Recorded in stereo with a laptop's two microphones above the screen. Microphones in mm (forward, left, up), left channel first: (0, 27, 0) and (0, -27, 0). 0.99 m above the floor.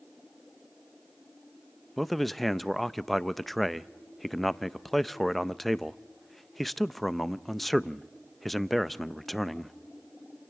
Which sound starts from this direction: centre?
A man speaking, at 2.0 s.